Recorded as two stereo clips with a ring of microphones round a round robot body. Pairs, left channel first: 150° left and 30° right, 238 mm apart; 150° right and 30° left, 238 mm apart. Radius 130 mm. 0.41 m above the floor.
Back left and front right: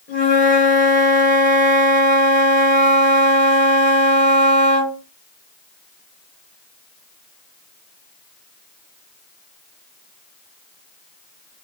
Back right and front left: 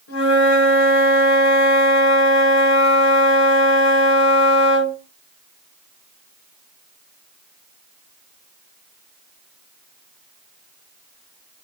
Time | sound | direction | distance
0.1 | a flute | 155° right | 2.0 m